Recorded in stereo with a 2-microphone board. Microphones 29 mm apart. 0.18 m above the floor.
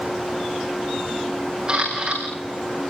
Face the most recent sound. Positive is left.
turn(degrees=-30)  # may be behind; listen again after turning